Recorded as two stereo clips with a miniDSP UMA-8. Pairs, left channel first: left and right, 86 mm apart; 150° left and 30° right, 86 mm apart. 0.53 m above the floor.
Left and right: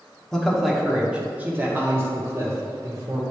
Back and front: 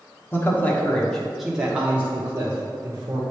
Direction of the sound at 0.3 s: 170° left.